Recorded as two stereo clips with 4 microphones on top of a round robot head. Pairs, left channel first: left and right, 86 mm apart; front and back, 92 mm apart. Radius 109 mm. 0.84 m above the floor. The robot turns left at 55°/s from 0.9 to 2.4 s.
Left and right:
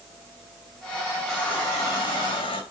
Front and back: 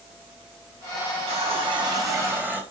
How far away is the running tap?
About 3 m.